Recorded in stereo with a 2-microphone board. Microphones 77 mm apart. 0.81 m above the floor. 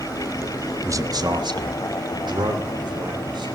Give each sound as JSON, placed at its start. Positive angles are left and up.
{"t": 0.8, "sound": "a man speaking", "side_deg": -40, "distance_m": 1.0}